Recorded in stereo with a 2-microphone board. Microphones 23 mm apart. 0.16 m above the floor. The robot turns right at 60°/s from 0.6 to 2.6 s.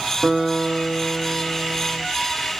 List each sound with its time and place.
0.2 s a guitar: 90° right, 1.7 m; by 2.0 s 5° right, 1.7 m